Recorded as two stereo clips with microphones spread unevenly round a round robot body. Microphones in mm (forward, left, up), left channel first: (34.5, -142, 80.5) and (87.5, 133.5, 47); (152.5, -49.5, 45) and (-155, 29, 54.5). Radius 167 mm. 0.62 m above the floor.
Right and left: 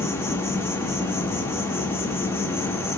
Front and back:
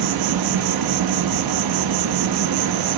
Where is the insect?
175° left, 0.8 m.